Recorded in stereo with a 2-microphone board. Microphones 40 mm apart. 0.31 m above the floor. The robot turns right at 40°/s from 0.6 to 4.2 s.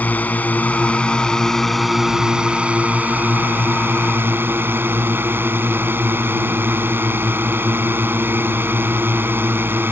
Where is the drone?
135° left; by 9.9 s 85° right.